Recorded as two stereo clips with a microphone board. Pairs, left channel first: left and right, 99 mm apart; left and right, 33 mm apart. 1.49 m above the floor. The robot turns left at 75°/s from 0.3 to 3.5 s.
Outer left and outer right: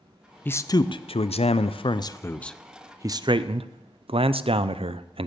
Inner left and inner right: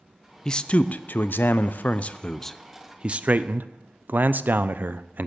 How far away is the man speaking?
About 0.5 m.